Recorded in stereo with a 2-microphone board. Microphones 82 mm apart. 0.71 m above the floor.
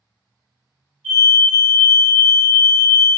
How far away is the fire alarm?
About 1.5 m.